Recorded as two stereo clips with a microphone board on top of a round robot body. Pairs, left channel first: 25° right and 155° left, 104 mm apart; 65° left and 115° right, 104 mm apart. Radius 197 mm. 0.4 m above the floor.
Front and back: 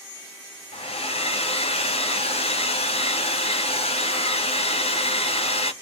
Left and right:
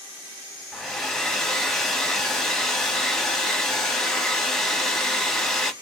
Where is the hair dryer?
20° right, 1.0 m.